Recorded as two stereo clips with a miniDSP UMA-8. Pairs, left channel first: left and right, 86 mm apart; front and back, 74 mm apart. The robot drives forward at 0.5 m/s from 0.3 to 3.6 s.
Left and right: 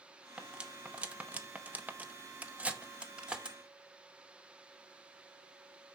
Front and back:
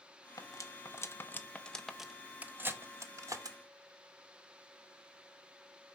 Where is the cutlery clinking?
15° right, 1.0 m; by 3.6 s 165° right, 1.0 m.